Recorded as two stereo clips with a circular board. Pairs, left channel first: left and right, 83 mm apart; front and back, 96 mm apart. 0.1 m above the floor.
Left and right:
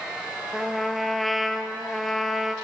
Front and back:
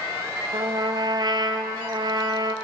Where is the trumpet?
Straight behind, 0.7 m.